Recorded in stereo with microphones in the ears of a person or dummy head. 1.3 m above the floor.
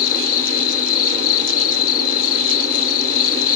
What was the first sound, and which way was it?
An insect, 50° left (ahead or behind).